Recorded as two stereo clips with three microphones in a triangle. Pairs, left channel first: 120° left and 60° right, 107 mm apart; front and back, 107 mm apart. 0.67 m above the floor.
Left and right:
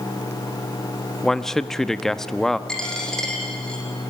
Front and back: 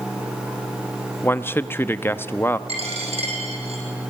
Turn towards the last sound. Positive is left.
turn(degrees=-155)